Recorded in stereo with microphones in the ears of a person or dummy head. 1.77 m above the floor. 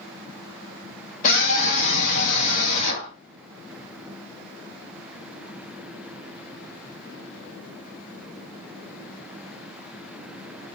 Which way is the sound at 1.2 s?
45° left (ahead or behind).